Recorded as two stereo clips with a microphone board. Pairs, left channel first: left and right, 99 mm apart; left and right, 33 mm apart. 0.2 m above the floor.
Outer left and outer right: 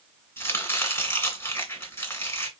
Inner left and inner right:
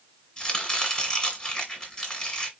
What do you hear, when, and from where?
0.4 s chopping: 25° left (ahead or behind), 1.9 m